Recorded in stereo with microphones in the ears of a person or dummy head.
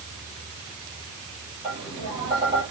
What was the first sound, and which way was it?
Tapping, 25° right (ahead or behind).